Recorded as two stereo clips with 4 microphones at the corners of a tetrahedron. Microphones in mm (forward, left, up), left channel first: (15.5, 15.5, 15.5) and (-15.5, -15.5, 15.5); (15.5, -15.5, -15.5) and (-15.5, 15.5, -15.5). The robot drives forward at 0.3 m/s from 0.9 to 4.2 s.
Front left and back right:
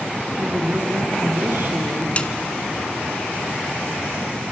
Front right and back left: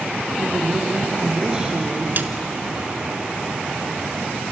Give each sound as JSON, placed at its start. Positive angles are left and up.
{"t": 0.4, "sound": "a woman speaking", "azimuth_deg": -155, "distance_m": 3.0}
{"t": 2.2, "sound": "a snare drum", "azimuth_deg": 100, "distance_m": 1.1}